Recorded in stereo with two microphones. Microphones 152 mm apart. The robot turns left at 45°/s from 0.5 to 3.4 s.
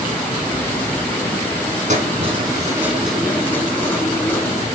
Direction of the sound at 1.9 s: 120° right.